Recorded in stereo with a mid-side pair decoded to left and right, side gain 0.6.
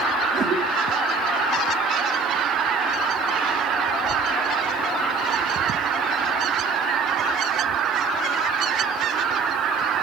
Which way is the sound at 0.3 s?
45° right.